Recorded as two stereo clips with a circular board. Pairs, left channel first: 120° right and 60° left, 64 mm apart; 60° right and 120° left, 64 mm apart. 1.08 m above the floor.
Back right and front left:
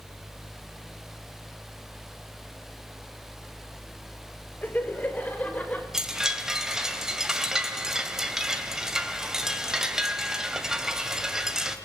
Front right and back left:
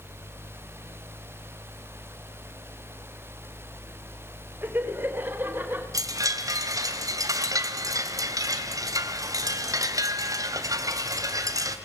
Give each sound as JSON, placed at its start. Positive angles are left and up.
{"t": 4.6, "sound": "laughter", "azimuth_deg": 180, "distance_m": 5.0}
{"t": 5.9, "sound": "a chime", "azimuth_deg": 140, "distance_m": 2.5}